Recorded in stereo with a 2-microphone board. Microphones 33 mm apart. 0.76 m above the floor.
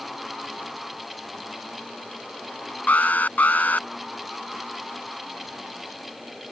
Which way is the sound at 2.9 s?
60° left (ahead or behind).